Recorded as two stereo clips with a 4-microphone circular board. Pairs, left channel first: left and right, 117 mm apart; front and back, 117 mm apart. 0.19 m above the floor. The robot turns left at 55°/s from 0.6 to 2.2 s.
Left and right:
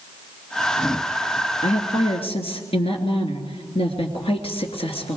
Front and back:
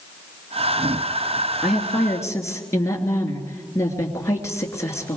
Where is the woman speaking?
95° left, 3 m; by 5.2 s 65° left, 3 m.